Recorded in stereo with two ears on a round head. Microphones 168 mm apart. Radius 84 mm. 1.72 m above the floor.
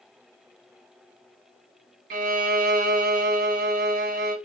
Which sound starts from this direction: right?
A violin, at 2.1 s.